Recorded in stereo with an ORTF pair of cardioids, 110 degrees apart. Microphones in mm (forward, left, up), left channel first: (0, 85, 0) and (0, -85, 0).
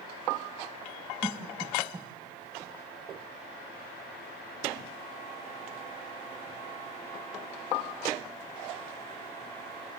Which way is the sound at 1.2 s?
20° right.